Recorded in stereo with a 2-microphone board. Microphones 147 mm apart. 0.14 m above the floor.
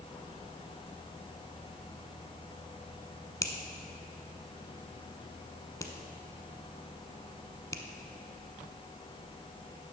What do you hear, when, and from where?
3.4 s a finger snap: 20° left (ahead or behind), 0.9 m